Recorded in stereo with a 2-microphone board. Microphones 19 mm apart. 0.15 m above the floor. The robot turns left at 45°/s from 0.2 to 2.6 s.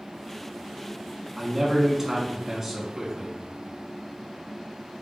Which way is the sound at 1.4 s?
25° right (ahead or behind).